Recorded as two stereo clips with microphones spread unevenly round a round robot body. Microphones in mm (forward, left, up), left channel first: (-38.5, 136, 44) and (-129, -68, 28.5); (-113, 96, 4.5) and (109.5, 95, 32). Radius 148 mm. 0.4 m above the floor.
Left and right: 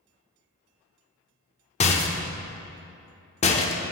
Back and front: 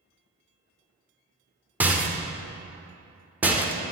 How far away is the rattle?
About 0.6 m.